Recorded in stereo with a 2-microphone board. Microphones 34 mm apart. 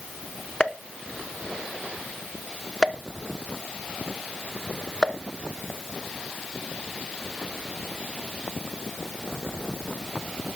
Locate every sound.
0.6 s a pop: 25° left (ahead or behind), 0.6 m